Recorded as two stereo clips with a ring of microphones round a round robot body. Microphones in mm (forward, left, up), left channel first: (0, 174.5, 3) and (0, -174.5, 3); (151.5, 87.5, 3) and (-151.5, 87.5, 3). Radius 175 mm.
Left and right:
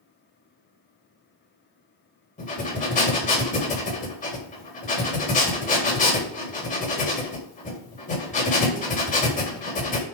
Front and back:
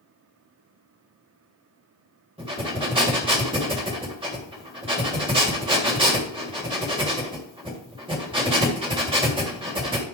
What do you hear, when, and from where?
2.4 s breathing: 130° left, 1.7 m